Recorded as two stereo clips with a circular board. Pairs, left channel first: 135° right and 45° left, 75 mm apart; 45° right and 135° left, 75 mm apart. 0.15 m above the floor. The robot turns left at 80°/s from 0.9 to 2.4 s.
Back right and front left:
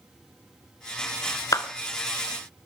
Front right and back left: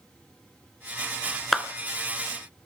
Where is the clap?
135° right, 1.5 m; by 1.7 s 145° right, 1.5 m.